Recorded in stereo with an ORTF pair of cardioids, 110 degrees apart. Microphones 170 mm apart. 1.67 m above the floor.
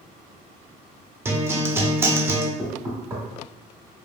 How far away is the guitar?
About 0.5 m.